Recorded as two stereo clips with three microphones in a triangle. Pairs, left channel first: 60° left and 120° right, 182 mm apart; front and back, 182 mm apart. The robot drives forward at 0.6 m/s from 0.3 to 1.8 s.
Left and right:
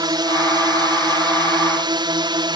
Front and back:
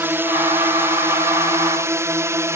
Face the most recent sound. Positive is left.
turn(degrees=-130)